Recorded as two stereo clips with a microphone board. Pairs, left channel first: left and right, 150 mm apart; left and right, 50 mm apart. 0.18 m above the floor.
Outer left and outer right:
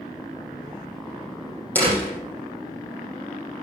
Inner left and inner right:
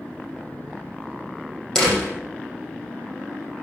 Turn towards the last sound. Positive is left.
turn(degrees=10)  # may be behind; listen again after turning